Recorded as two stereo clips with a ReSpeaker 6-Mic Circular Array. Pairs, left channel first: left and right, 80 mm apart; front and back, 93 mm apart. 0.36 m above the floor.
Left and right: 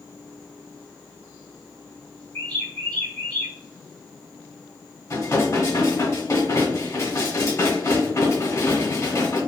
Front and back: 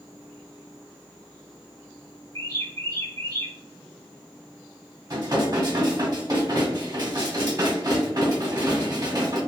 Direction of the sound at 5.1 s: 135° left.